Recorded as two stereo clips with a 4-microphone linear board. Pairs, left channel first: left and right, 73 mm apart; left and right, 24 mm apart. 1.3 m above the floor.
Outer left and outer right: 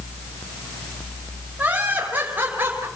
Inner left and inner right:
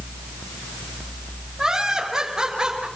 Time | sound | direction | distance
1.6 | laughter | 20° right (ahead or behind) | 5.5 m